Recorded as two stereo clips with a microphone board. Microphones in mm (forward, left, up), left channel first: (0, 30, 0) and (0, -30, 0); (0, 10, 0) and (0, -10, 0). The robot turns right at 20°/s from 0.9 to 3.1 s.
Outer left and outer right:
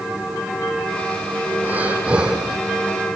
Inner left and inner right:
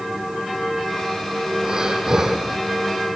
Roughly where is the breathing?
Right.